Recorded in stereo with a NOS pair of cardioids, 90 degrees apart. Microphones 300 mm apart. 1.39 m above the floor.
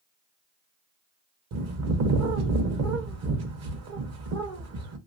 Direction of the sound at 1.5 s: 55° right.